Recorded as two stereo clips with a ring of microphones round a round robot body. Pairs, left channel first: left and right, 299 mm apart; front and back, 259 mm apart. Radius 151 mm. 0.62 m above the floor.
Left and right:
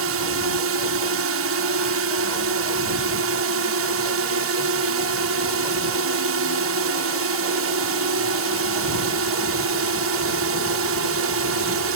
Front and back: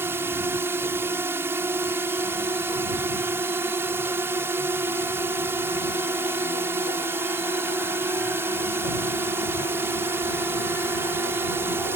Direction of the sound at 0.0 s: 100° right.